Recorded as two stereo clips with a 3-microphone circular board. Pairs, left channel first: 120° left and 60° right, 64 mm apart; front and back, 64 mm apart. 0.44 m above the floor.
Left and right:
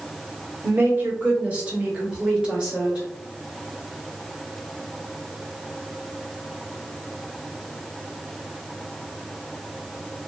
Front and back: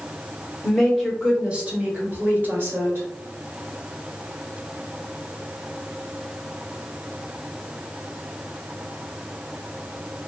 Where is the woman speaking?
80° right, 1.0 m; by 3.1 s 135° right, 1.9 m.